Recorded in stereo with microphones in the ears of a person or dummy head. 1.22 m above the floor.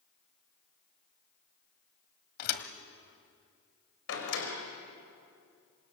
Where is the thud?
50° left (ahead or behind), 1.9 m.